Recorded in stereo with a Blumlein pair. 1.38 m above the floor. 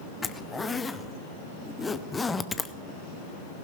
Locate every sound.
0.2 s a zipper: 10° left, 0.7 m